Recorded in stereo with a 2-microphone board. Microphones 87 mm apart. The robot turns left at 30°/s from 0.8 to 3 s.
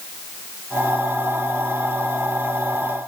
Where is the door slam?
No door slam in this recording.